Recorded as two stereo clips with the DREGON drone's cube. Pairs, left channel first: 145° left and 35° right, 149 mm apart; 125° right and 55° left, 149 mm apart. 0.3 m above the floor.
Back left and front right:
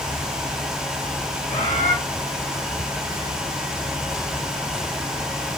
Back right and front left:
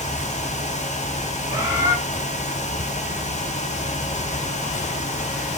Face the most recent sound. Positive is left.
turn(degrees=110)